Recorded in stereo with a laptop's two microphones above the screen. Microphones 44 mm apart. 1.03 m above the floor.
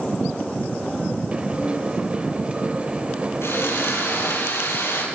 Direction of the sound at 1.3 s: 30° right (ahead or behind).